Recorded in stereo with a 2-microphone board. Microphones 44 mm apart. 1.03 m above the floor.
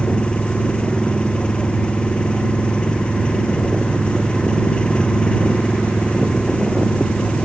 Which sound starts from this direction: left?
An engine running, at 0.0 s.